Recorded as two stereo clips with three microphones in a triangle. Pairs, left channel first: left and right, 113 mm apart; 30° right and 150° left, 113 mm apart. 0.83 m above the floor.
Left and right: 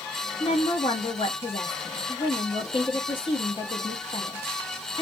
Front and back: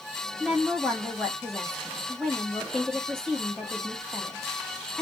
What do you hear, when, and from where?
0.4 s a woman speaking: 55° left, 1.3 m